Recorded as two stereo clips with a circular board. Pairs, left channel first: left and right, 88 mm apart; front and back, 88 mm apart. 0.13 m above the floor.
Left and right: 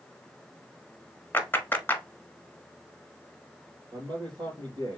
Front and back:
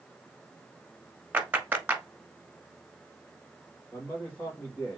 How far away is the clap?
About 1.1 m.